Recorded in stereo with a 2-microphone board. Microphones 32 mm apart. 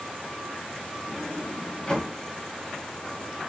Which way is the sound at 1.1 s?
30° left (ahead or behind).